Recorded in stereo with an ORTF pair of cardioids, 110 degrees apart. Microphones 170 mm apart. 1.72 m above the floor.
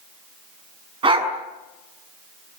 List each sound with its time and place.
1.0 s a dog barking: 30° right, 5.5 m